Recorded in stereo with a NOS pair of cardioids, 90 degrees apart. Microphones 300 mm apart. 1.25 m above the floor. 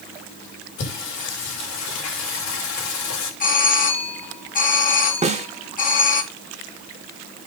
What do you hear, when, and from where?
0.8 s singing: 70° left, 6 m
3.4 s a doorbell: 25° left, 2.5 m
5.2 s a snare drum: 20° right, 2 m